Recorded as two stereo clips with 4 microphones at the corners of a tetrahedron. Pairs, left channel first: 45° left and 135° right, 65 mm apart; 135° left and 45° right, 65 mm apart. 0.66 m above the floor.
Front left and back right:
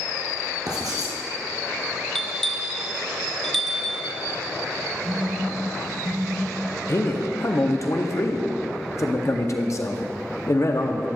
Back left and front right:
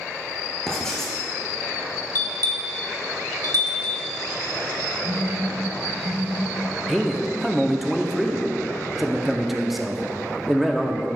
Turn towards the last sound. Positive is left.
turn(degrees=45)